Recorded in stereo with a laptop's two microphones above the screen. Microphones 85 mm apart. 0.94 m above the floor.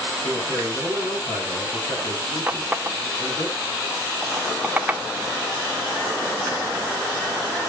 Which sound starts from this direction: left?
A man speaking, at 0.2 s.